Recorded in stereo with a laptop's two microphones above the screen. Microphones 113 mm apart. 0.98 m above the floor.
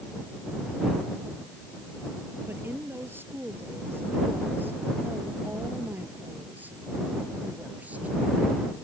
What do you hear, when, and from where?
2.5 s a woman speaking: 20° right (ahead or behind); by 8.2 s 15° right (ahead or behind)